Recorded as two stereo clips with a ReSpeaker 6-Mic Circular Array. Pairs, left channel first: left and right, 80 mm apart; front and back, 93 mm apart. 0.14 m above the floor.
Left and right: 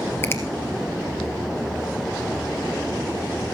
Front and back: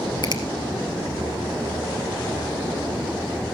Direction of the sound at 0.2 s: 30° left.